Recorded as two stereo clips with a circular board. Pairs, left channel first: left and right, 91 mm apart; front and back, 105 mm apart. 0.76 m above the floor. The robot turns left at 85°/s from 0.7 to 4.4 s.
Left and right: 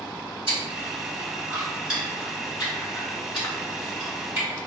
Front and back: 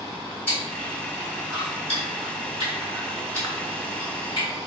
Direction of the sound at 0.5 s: 70° right.